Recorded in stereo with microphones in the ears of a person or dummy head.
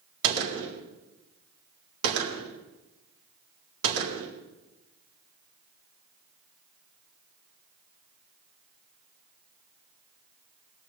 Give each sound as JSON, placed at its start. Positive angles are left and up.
{"t": 0.2, "sound": "a gunshot", "side_deg": -85, "distance_m": 4.0}